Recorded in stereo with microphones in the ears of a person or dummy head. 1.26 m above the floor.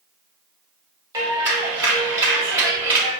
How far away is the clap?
About 1.6 m.